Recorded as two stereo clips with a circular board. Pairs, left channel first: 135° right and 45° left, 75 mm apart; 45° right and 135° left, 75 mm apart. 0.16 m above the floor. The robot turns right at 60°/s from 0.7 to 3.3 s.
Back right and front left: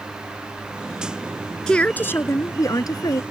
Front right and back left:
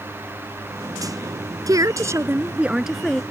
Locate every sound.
1.7 s a woman speaking: 145° left; by 3.2 s 120° right